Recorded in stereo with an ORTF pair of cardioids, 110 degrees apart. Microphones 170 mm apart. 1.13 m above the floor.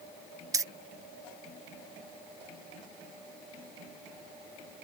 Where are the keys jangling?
20° right.